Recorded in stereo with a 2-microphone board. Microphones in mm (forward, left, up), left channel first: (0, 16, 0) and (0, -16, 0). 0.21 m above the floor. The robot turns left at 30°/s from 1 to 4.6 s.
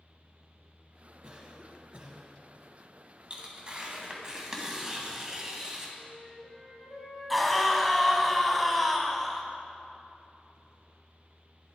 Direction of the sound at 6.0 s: Centre (ahead or behind).